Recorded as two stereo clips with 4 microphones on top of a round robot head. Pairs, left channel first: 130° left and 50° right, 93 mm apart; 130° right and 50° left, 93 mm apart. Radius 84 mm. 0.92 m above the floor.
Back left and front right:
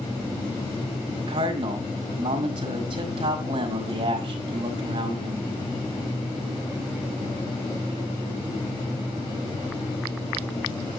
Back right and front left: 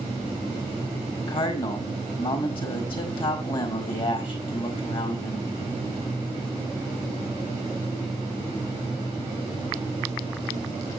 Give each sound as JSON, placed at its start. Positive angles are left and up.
{"t": 1.2, "sound": "a man speaking", "azimuth_deg": -95, "distance_m": 4.5}